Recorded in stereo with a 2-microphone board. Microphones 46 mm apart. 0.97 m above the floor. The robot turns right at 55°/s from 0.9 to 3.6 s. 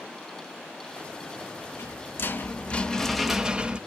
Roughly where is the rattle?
Left.